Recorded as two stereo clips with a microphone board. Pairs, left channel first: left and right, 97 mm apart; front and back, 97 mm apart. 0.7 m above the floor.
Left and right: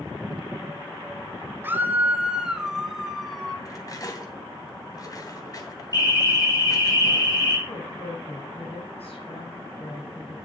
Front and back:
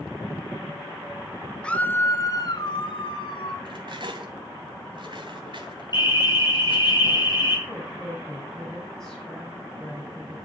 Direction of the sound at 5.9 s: 40° left.